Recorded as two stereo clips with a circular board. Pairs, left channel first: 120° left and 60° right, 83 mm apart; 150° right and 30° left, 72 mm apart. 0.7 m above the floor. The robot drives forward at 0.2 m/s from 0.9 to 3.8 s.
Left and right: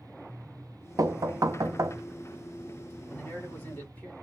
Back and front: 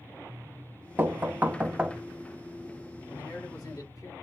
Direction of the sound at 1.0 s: 30° right.